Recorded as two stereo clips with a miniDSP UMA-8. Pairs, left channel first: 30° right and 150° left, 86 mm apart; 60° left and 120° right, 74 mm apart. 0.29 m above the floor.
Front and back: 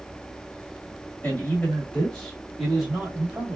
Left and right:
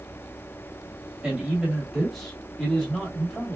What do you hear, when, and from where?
1.2 s a man speaking: 50° right, 1.6 m; by 3.6 s 100° left, 1.6 m